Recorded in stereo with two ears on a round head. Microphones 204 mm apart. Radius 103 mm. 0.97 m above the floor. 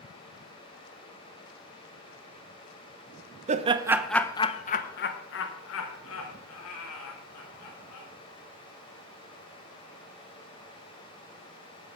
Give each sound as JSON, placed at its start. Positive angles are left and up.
{"t": 3.5, "sound": "laughter", "side_deg": -30, "distance_m": 0.6}